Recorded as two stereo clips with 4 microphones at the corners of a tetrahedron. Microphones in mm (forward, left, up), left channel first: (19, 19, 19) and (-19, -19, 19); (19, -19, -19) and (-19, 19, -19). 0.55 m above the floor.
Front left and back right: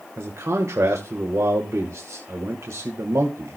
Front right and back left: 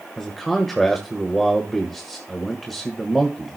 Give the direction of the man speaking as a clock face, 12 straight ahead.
4 o'clock.